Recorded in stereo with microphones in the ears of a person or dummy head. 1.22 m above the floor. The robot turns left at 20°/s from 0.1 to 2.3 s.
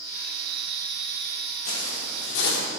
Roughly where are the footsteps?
Left.